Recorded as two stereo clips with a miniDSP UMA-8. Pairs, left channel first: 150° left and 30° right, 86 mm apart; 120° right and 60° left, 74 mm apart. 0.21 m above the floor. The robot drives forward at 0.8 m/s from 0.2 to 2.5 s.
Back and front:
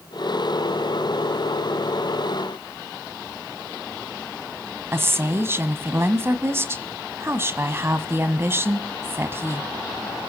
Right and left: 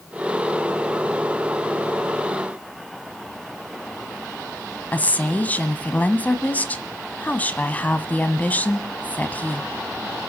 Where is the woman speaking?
70° right, 1.2 m.